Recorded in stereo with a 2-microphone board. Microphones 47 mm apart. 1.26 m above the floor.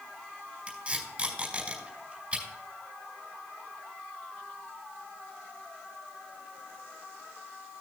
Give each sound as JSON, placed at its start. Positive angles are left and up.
{"t": 0.7, "sound": "tape being pulled", "side_deg": -30, "distance_m": 4.5}